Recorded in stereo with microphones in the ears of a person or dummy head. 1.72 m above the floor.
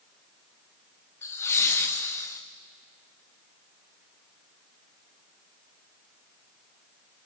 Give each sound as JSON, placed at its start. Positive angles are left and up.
{"t": 1.2, "sound": "laughter", "side_deg": 15, "distance_m": 0.9}